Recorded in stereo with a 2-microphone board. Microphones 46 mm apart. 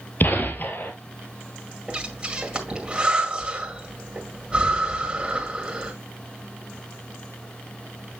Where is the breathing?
25° right (ahead or behind), 1.9 m.